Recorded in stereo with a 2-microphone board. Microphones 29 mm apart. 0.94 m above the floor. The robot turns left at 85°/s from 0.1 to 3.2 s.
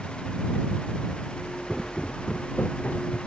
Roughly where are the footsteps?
Centre.